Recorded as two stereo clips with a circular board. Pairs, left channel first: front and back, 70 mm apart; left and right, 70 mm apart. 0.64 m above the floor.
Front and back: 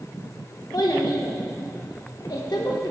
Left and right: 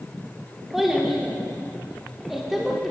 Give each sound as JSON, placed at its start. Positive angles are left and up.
{"t": 0.7, "sound": "a child speaking", "azimuth_deg": -5, "distance_m": 1.1}